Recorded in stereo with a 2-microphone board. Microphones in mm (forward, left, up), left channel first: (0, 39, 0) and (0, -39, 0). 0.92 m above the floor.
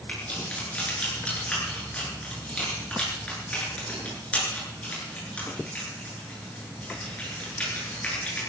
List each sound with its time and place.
0.1 s keys jangling: 15° left (ahead or behind), 9.5 m